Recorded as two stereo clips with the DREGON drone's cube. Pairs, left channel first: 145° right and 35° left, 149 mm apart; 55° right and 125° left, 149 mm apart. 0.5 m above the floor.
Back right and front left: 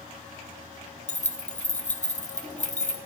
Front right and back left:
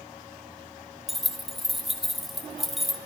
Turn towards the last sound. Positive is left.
turn(degrees=-145)